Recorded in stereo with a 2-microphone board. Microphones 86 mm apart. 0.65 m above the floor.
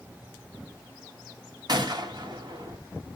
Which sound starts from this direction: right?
A gunshot, at 1.7 s.